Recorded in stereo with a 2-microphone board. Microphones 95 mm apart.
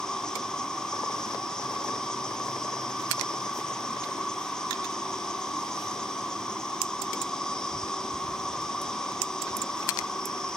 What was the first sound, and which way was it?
An insect, 10° left (ahead or behind).